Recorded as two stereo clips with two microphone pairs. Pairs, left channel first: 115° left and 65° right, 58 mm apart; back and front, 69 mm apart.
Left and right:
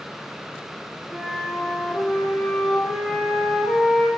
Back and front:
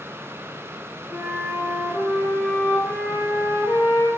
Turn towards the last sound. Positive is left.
turn(degrees=40)